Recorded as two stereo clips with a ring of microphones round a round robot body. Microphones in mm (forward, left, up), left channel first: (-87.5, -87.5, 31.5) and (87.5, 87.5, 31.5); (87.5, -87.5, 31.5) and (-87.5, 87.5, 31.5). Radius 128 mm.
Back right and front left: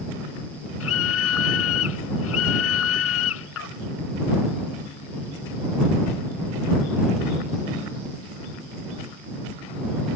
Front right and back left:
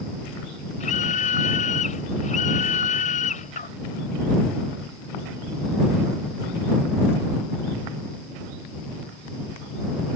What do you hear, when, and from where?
0.8 s a scream: 105° right